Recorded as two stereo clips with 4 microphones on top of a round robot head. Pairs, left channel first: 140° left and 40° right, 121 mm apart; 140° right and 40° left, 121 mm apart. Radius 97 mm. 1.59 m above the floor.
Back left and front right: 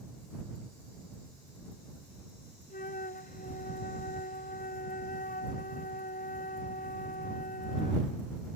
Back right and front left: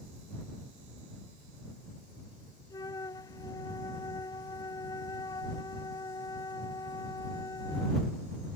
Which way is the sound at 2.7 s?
160° left.